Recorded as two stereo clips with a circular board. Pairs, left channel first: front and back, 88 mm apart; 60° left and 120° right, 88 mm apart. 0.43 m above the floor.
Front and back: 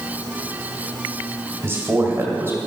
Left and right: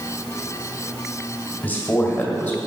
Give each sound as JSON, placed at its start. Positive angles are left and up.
{"t": 1.6, "sound": "a man speaking", "azimuth_deg": 125, "distance_m": 2.0}